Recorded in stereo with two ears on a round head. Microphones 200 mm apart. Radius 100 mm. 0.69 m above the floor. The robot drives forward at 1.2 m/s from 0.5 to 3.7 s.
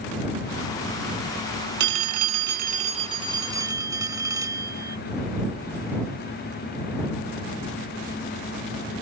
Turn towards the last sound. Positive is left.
turn(degrees=-15)  # may be behind; listen again after turning